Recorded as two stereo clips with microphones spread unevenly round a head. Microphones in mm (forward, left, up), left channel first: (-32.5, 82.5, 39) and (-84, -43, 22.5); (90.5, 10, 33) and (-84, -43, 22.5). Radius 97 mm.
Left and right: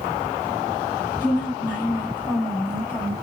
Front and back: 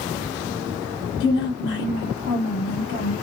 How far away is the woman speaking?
About 1.3 m.